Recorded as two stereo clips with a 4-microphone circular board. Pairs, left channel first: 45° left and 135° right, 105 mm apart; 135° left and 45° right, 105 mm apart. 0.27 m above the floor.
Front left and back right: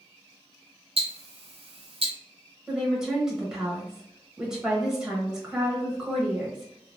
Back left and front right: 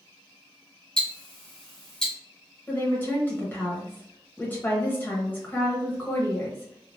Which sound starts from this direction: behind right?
Ticking, at 1.0 s.